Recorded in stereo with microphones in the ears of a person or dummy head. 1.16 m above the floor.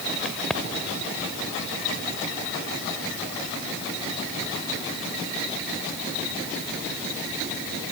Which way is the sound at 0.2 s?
Centre (ahead or behind).